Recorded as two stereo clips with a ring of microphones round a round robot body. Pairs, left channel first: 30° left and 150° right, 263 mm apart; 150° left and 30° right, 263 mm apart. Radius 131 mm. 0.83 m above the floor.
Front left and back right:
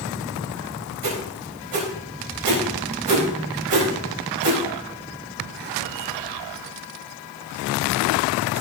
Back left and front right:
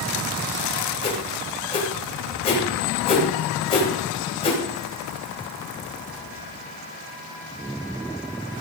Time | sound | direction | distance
1.0 | a whoosh | 140° right | 4 m